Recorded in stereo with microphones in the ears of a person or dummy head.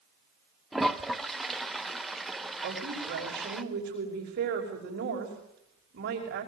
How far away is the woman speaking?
About 5.5 m.